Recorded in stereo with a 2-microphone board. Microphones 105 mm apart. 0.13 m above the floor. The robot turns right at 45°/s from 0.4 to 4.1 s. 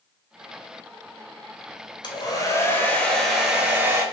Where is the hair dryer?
120° left, 0.9 m; by 4.0 s 150° right, 0.9 m.